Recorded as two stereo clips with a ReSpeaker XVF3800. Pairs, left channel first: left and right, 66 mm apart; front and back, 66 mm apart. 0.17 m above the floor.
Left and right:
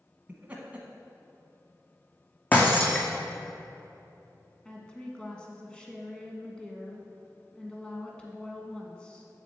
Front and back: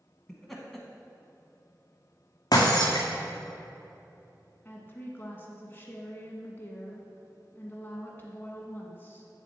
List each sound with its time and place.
0.3 s laughter: 80° right, 1.0 m
2.5 s breaking glass: 25° left, 1.7 m
4.7 s a woman speaking: 25° left, 1.3 m